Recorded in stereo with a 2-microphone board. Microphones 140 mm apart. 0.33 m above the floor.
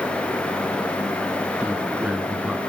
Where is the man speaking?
10° right (ahead or behind), 3 m.